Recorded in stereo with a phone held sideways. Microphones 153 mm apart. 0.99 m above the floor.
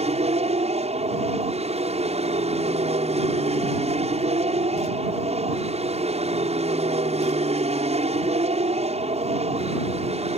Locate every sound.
0.0 s an aircraft: 45° right (ahead or behind)